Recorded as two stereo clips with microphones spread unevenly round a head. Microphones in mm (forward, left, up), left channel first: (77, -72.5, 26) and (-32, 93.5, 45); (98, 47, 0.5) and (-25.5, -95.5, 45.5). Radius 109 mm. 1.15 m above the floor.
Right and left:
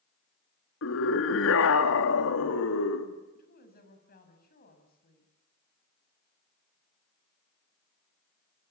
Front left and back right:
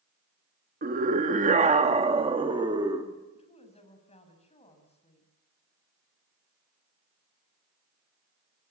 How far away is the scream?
About 2.5 m.